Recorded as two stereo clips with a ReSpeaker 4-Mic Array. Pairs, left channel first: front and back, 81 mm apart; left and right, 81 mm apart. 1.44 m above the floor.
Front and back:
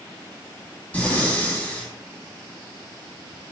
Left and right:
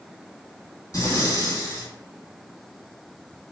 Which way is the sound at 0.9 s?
65° left.